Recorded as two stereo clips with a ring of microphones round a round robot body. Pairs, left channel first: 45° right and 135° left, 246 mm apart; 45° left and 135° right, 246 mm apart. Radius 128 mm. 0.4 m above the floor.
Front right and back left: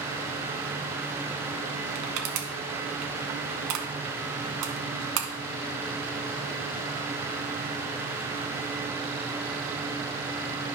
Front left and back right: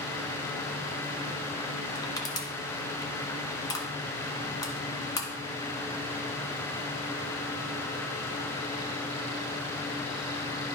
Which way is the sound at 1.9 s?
120° left.